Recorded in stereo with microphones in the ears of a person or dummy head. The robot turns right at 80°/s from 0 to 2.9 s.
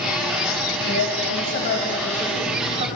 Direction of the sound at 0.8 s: 70° left.